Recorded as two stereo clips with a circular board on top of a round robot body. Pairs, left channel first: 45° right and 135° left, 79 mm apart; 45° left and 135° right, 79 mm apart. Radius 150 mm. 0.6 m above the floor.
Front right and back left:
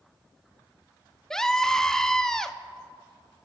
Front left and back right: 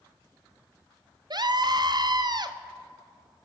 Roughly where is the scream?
Behind right.